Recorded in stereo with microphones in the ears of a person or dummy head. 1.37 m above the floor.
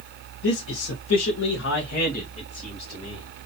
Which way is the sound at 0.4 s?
75° left (ahead or behind).